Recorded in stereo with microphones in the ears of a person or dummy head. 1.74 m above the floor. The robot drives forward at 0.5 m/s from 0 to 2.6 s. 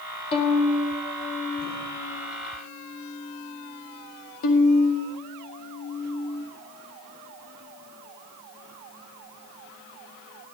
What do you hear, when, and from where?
0.3 s a violin: 25° left (ahead or behind), 2 m; by 6.5 s 40° left (ahead or behind), 1.4 m